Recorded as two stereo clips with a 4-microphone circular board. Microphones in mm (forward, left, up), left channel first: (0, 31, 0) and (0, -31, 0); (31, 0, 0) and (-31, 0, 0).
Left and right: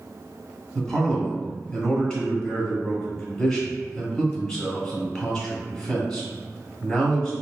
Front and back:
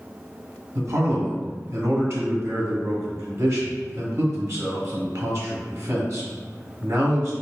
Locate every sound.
0.8 s a man speaking: 150° left, 1.2 m